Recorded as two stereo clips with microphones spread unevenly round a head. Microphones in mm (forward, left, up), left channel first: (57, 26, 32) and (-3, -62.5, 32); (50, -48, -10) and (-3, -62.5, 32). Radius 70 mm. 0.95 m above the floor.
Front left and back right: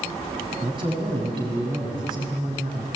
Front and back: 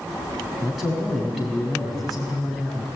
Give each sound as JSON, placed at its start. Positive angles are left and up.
{"t": 0.6, "sound": "a man speaking", "azimuth_deg": -80, "distance_m": 6.5}